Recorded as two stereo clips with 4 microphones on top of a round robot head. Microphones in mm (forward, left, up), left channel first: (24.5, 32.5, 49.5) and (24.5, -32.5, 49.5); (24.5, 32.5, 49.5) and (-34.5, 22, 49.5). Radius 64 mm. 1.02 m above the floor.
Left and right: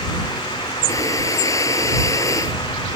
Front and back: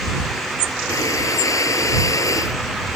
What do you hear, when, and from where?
0.9 s breathing: 45° left